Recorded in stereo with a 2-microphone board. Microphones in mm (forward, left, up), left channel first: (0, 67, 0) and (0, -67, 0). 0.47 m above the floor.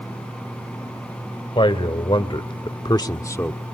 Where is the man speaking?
40° left (ahead or behind), 2.5 m; by 3.6 s 15° left (ahead or behind), 1.4 m.